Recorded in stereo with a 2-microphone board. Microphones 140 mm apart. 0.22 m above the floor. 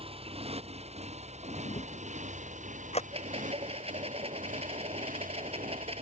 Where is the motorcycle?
45° right (ahead or behind); by 6.0 s 75° right (ahead or behind).